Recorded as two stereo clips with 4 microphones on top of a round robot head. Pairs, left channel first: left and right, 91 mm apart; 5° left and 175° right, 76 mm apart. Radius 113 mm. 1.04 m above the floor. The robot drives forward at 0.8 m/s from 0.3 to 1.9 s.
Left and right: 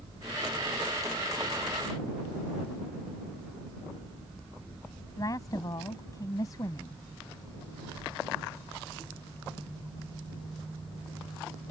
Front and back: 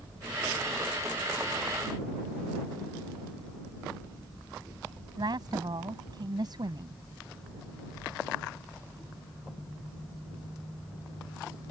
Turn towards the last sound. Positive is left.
turn(degrees=150)